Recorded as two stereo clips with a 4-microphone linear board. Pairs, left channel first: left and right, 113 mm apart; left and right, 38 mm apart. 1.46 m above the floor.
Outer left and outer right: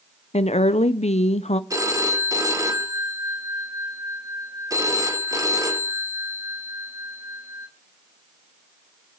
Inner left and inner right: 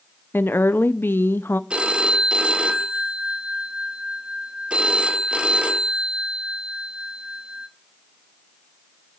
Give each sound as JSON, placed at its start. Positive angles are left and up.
{"t": 0.3, "sound": "a woman speaking", "side_deg": 65, "distance_m": 0.6}
{"t": 1.7, "sound": "a phone ringing", "side_deg": -30, "distance_m": 1.1}